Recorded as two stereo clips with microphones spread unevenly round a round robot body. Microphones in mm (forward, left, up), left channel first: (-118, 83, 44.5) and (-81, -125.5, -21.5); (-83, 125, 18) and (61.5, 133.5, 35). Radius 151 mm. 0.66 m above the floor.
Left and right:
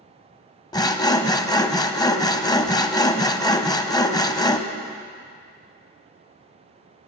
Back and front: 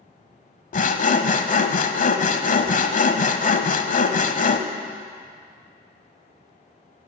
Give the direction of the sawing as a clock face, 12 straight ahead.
7 o'clock.